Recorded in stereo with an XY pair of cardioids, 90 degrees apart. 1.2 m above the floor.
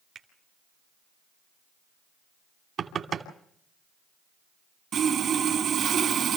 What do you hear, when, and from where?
0.1 s a finger snap: 60° right, 3 m
2.8 s knocking: 60° right, 2.5 m
4.9 s sawing: 70° right, 3.5 m